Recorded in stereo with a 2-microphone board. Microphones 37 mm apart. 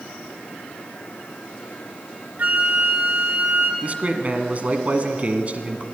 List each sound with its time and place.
2.4 s a flute: 50° right (ahead or behind), 2 m
3.8 s a man speaking: 40° right (ahead or behind), 1.7 m